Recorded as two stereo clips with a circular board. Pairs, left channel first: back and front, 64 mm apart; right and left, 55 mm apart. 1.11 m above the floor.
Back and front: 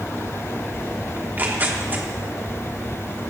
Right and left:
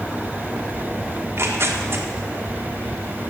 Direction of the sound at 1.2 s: 55° left.